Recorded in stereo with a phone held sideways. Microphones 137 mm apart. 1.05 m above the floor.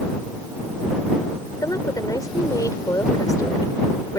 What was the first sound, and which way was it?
A woman speaking, 25° left (ahead or behind).